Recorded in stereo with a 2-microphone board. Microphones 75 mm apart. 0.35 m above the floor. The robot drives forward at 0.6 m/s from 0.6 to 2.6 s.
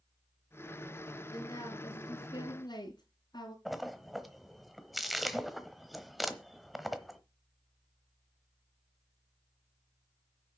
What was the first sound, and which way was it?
A woman speaking, 55° left (ahead or behind).